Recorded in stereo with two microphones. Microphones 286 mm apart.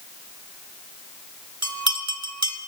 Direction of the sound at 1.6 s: 65° right (ahead or behind).